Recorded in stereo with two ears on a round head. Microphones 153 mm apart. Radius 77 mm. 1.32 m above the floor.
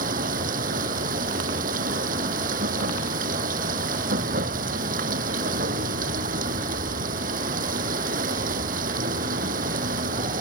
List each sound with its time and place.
0.0 s running water: 55° right (ahead or behind)